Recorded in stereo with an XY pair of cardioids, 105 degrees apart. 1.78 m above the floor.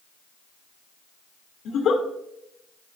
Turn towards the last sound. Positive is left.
turn(degrees=70)